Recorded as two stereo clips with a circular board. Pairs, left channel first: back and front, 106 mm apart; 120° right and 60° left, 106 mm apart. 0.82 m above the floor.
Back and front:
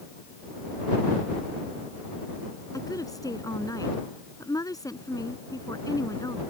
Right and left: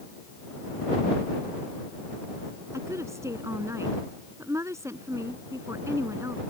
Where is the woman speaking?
125° left.